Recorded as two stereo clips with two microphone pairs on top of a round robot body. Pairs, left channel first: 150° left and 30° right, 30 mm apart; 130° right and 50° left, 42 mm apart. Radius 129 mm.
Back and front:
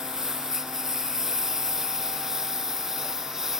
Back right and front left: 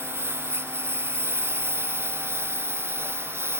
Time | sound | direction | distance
0.0 | a lawn mower | 45° left | ?